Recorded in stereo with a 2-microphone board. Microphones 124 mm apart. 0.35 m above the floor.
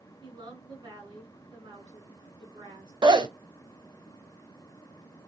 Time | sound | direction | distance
0.2 | a woman speaking | 40° right (ahead or behind) | 4 m
3.0 | a zipper | 40° right (ahead or behind) | 0.9 m